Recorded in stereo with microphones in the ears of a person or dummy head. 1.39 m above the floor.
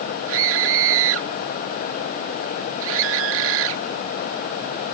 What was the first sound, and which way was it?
A scream, 80° right.